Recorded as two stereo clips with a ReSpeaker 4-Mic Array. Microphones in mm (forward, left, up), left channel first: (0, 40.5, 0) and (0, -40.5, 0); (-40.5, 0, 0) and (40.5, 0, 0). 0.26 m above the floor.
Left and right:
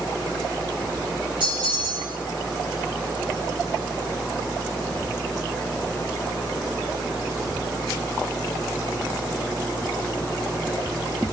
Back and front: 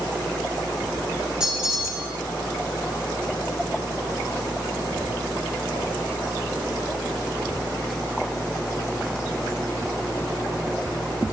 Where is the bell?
80° right, 8 m.